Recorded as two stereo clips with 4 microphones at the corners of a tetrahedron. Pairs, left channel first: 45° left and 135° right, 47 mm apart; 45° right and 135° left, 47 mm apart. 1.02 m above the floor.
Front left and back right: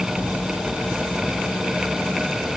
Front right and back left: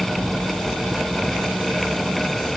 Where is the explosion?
15° right.